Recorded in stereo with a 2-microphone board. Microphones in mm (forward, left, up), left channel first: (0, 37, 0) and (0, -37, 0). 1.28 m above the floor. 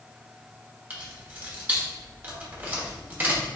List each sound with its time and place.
0.9 s keys jangling: 25° right (ahead or behind), 1.0 m